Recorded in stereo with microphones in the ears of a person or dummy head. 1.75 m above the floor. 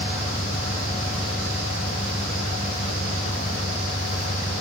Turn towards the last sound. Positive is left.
turn(degrees=0)  # may be behind; listen again after turning